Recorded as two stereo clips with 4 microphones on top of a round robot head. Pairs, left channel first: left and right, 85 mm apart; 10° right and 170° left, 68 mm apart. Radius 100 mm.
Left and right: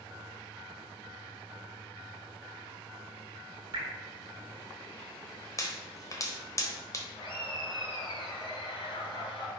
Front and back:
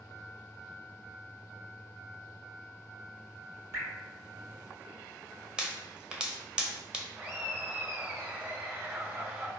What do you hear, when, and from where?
3.7 s dripping: 135° right, 1.4 m
5.6 s a pop: 100° left, 1.0 m
7.2 s laughter: 110° left, 1.9 m